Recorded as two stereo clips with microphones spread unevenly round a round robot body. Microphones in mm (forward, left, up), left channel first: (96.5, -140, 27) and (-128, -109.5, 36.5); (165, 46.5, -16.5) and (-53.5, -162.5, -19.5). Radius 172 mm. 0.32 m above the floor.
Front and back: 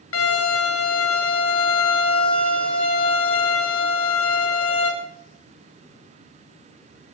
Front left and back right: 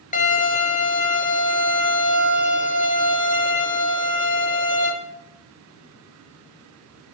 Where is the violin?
20° right, 5 m.